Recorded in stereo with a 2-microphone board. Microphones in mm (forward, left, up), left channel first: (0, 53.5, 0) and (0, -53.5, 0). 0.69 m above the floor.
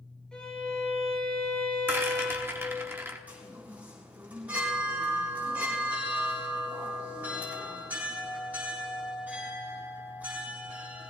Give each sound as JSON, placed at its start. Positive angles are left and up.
{"t": 0.3, "sound": "a violin", "side_deg": 10, "distance_m": 4.5}
{"t": 1.9, "sound": "a rattle", "side_deg": -25, "distance_m": 1.1}
{"t": 3.3, "sound": "a chime", "side_deg": -15, "distance_m": 4.5}